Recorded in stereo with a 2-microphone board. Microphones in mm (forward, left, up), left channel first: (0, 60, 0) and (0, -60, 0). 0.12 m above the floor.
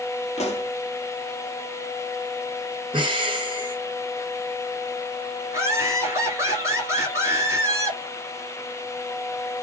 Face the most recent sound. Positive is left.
turn(degrees=-25)  # may be behind; listen again after turning